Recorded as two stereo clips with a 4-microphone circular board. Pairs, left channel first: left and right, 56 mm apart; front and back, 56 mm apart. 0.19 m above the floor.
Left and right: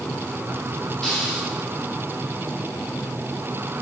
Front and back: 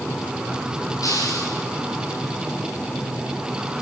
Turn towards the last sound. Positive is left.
turn(degrees=15)